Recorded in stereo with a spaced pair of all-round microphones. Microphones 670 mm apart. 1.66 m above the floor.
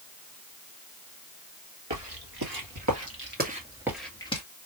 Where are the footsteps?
40° right (ahead or behind), 2 m; by 4.4 s 10° left (ahead or behind), 1.7 m.